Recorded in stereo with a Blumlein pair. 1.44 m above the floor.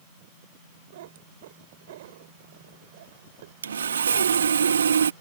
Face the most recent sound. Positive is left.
turn(degrees=-70)